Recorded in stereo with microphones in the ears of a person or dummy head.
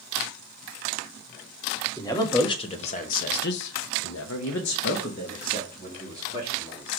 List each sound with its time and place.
2.0 s a man speaking: 20° left (ahead or behind), 1.7 m; by 6.9 s 30° left (ahead or behind), 2.5 m